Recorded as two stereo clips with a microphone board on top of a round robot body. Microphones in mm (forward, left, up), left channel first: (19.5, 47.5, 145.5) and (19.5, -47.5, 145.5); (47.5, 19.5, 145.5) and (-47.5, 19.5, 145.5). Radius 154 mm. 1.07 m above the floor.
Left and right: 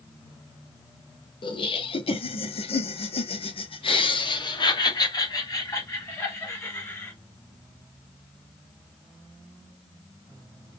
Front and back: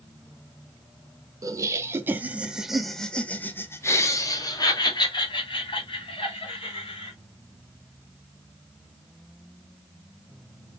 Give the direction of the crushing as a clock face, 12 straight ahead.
I don't hear crushing.